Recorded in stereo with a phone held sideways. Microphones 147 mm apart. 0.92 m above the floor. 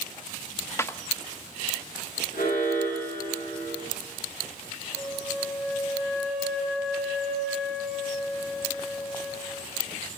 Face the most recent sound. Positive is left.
turn(degrees=0)  # may be behind; listen again after turning